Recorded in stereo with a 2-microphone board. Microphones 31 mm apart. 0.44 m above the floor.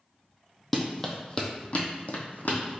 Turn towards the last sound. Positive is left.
turn(degrees=65)  # may be behind; listen again after turning